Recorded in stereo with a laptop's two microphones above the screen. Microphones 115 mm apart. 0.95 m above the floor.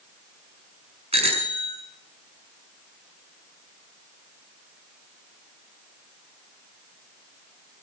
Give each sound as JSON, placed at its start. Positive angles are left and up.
{"t": 1.1, "sound": "a bicycle bell", "side_deg": -60, "distance_m": 6.5}